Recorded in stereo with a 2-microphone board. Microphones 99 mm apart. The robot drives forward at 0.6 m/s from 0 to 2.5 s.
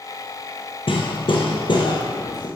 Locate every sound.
0.9 s hammering: 65° left (ahead or behind), 1.5 m; by 2.5 s 45° left (ahead or behind), 1.9 m